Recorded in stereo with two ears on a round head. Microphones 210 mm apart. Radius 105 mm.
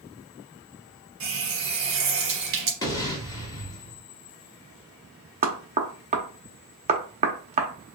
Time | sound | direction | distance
1.2 | a running tap | 70° right (ahead or behind) | 1.7 m
2.8 | an explosion | 15° left (ahead or behind) | 0.9 m
5.4 | knocking | 30° right (ahead or behind) | 0.9 m